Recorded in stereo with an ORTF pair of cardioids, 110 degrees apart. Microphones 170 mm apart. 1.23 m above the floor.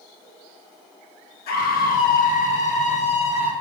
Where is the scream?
70° left, 1.4 m; by 3.5 s 35° left, 1.9 m.